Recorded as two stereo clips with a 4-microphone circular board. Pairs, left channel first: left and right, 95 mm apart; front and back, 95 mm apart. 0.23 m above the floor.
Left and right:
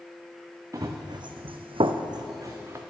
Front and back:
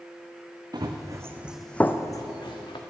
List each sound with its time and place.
0.7 s running footsteps: 140° right, 1.0 m; by 2.8 s 25° right, 1.2 m